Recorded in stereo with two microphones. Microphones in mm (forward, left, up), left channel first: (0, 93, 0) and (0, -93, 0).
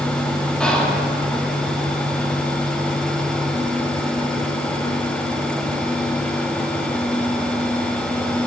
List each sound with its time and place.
0.6 s whispering: 5° left (ahead or behind), 1.0 m